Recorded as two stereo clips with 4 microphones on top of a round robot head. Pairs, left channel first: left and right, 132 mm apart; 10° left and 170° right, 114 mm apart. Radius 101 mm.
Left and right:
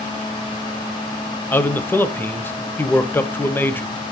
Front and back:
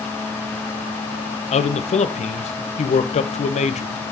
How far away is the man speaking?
About 0.9 m.